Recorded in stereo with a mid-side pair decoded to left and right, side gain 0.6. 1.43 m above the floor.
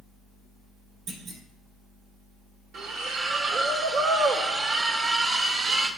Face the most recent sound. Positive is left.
turn(degrees=-55)